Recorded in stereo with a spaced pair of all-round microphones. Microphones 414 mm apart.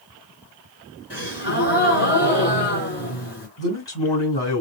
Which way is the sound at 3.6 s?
75° left (ahead or behind).